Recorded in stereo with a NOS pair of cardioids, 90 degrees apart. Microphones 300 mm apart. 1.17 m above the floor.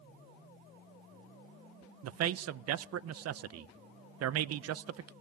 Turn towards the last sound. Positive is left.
turn(degrees=-60)